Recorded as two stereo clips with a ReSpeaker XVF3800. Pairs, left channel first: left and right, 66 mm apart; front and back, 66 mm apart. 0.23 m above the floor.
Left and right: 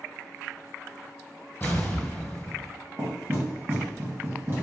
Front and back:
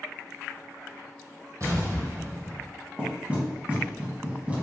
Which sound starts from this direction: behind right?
Knocking, at 3.0 s.